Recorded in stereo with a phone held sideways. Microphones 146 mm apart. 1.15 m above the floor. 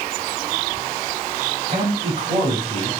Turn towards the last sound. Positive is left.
turn(degrees=-40)  # may be behind; listen again after turning